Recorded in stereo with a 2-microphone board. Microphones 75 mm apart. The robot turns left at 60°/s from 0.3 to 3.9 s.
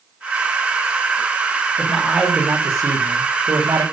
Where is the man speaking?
20° left, 3.5 m; by 3.8 s 100° right, 3.5 m.